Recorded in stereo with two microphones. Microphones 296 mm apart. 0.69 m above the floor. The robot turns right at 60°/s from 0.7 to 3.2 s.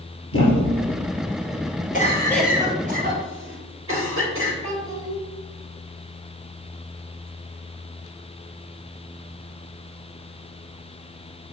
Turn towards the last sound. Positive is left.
turn(degrees=-65)  # may be behind; listen again after turning